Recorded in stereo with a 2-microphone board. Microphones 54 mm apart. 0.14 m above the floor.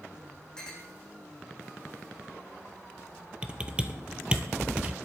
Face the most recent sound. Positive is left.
turn(degrees=-20)  # may be behind; listen again after turning